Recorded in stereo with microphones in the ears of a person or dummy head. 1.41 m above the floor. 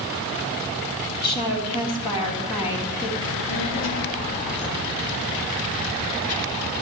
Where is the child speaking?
85° left, 2 m.